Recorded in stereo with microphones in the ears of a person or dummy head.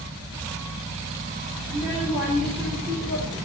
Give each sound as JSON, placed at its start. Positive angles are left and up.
{"t": 1.7, "sound": "a child speaking", "side_deg": -25, "distance_m": 2.0}